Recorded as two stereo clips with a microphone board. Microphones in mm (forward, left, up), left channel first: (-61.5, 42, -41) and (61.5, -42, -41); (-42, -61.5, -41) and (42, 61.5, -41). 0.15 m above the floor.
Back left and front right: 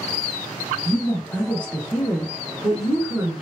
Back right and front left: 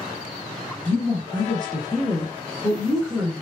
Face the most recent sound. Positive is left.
turn(degrees=20)